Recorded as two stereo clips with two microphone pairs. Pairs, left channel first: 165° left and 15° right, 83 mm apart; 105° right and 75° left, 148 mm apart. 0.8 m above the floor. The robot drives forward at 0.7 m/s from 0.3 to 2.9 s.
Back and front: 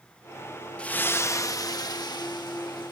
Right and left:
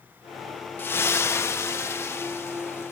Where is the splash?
145° right; by 2.9 s 175° right.